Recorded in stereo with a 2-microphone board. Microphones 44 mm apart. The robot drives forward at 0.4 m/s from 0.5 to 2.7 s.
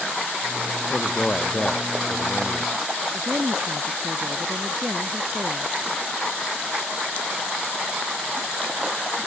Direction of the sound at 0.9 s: 30° left (ahead or behind).